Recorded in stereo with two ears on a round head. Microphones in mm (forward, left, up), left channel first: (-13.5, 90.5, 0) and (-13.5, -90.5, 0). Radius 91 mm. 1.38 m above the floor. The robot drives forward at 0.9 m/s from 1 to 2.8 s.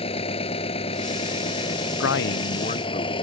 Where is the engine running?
30° left (ahead or behind).